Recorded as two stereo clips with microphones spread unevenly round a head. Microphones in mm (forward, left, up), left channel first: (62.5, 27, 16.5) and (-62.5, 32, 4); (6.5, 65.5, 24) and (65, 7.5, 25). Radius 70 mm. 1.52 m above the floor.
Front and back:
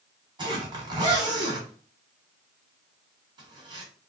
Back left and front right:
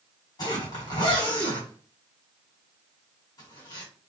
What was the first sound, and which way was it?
A zipper, 130° left.